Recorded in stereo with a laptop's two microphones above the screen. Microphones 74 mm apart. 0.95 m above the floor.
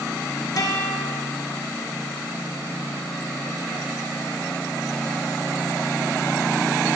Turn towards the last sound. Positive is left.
turn(degrees=55)  # may be behind; listen again after turning